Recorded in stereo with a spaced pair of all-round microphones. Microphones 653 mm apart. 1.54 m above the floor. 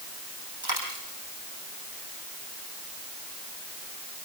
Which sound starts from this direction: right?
A dropped coin, at 0.6 s.